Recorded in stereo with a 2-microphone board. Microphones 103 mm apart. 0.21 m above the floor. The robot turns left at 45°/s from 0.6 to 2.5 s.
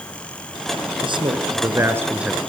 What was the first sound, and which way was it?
A man speaking, 115° right.